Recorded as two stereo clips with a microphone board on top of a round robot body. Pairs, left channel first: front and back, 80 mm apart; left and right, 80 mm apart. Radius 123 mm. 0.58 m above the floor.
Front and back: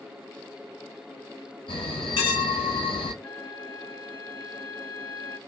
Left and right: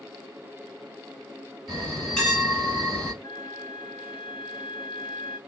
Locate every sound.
1.7 s a bell: 10° left, 1.4 m
3.2 s a flute: 65° left, 1.3 m